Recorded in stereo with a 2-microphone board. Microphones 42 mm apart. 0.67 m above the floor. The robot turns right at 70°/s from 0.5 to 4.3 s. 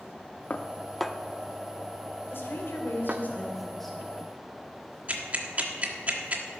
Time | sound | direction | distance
0.5 | dishes clattering | 35° left (ahead or behind) | 0.6 m
2.3 | a woman speaking | 70° left | 2.5 m
5.1 | ticking | 35° right (ahead or behind) | 1.5 m